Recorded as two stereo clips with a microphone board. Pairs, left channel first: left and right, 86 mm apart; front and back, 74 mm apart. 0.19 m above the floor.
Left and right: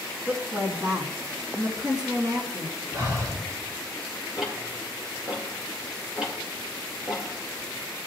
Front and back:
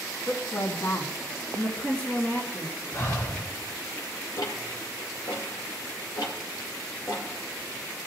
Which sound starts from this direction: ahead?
Ticking, at 4.4 s.